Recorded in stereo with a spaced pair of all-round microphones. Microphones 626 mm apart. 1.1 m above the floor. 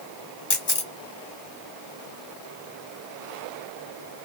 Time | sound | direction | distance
0.5 | a camera shutter | 40° left (ahead or behind) | 1.1 m